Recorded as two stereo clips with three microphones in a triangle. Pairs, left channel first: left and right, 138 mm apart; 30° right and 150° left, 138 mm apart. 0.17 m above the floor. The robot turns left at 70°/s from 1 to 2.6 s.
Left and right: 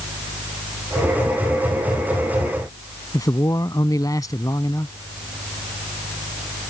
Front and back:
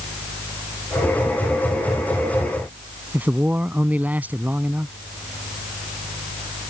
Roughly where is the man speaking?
Left.